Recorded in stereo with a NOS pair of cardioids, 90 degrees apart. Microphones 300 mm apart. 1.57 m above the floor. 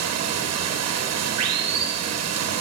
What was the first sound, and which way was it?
Running water, 65° right.